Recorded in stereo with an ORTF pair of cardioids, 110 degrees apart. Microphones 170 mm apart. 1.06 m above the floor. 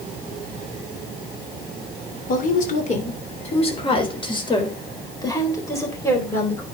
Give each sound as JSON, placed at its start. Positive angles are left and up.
{"t": 2.3, "sound": "a woman speaking", "azimuth_deg": 50, "distance_m": 3.0}